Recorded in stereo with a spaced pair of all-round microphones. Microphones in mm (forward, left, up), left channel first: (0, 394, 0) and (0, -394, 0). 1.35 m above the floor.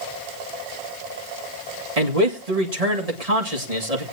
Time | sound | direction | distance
2.0 | a man speaking | 50° right (ahead or behind) | 2 m